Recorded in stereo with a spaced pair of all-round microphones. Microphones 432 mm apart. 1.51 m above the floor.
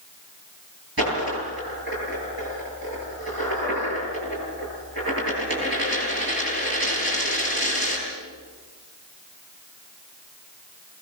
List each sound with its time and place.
1.0 s a dropped coin: 60° right (ahead or behind), 10 m